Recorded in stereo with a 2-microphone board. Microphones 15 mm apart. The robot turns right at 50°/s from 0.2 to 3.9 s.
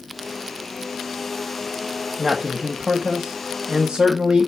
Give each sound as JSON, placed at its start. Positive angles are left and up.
{"t": 2.2, "sound": "a man speaking", "azimuth_deg": -165, "distance_m": 1.5}